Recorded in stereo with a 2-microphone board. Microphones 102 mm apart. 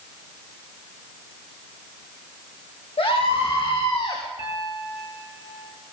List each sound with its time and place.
3.0 s a scream: 65° left (ahead or behind), 6 m; by 4.2 s 55° left (ahead or behind), 4.5 m
4.4 s a piano: 50° left (ahead or behind), 5 m